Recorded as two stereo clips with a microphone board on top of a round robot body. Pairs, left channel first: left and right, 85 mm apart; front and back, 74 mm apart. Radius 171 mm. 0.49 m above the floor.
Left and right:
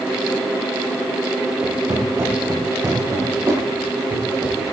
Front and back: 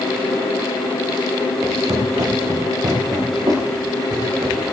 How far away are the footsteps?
About 6 m.